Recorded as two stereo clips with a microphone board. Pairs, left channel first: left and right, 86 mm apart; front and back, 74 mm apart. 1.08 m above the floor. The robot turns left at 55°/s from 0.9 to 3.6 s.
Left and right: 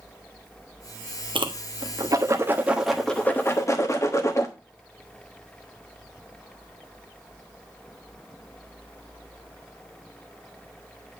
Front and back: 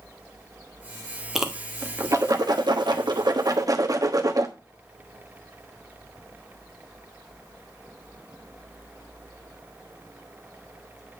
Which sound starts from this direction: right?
A whoosh, at 1.4 s.